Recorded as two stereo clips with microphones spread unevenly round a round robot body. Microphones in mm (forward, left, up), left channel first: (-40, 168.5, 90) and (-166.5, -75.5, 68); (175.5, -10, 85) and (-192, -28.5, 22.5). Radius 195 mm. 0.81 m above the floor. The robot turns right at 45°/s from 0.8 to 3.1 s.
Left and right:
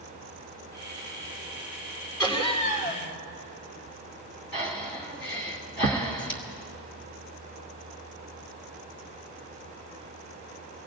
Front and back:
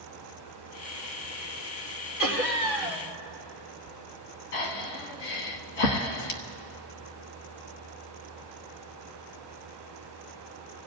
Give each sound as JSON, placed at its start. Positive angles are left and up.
{"t": 2.2, "sound": "laughter", "azimuth_deg": -30, "distance_m": 4.0}
{"t": 4.5, "sound": "breathing", "azimuth_deg": 5, "distance_m": 1.4}